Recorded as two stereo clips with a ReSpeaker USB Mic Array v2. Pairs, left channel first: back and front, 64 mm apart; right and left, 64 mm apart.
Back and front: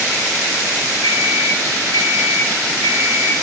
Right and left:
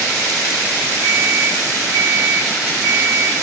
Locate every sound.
1.0 s an alarm clock: 165° right, 2.5 m